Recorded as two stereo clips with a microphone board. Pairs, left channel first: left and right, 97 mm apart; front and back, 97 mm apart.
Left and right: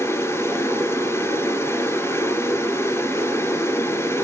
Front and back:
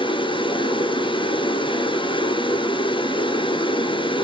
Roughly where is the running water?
Ahead left.